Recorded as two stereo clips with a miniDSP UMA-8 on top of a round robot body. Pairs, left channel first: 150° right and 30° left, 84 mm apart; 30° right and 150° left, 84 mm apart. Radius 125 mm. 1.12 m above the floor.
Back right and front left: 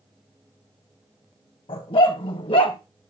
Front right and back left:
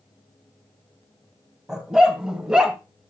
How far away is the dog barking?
About 2 m.